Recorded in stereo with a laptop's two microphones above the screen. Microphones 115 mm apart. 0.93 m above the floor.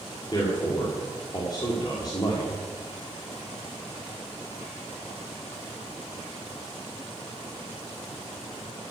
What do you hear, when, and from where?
0.3 s a man speaking: 35° left (ahead or behind), 1.9 m